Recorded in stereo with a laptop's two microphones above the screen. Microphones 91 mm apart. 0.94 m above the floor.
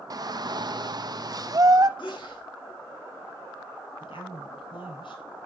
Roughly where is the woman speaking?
Left.